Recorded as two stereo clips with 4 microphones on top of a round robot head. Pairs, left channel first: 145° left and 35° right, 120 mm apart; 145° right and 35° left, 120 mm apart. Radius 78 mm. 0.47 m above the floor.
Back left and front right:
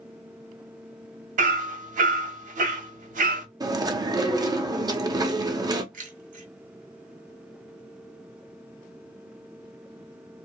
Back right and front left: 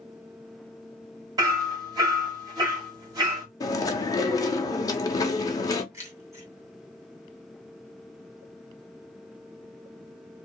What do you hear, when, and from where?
1.4 s hammering: 25° right, 1.2 m
3.6 s chewing: 90° right, 0.8 m
5.9 s keys jangling: 30° right, 1.9 m